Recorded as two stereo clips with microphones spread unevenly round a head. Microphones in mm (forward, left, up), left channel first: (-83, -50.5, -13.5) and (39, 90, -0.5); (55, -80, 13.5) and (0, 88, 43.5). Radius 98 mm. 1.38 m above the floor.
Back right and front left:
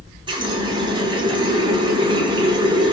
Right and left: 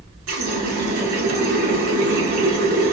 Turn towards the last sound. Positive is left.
turn(degrees=115)